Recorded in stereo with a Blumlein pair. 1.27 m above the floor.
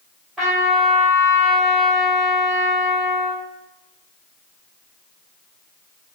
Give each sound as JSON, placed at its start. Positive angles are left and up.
{"t": 0.4, "sound": "a trumpet", "azimuth_deg": -20, "distance_m": 1.7}